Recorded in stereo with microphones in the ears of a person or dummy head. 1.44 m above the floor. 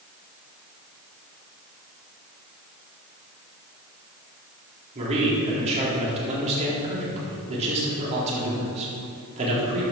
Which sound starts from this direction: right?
A man speaking, at 5.0 s.